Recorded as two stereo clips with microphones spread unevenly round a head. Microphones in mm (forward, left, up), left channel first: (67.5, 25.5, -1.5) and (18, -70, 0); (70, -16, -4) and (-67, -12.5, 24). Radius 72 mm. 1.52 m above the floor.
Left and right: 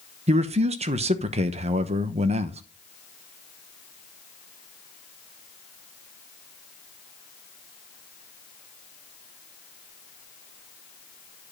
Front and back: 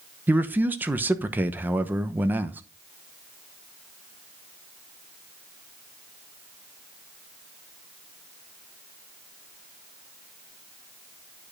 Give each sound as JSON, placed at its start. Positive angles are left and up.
{"t": 0.3, "sound": "a man speaking", "azimuth_deg": -110, "distance_m": 0.9}